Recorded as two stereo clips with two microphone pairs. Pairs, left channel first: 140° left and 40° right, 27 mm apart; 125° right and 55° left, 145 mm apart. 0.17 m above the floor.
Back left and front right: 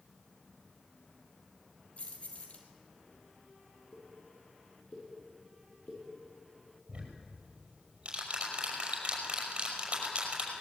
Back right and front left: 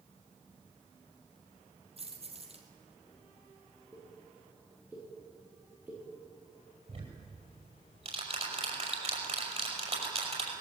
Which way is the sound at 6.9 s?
10° left.